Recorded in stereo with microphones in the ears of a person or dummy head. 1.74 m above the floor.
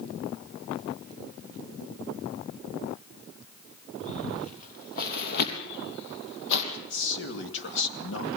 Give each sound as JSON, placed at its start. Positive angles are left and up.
{"t": 4.0, "sound": "footsteps", "side_deg": 35, "distance_m": 2.5}
{"t": 6.7, "sound": "a man speaking", "side_deg": 65, "distance_m": 2.0}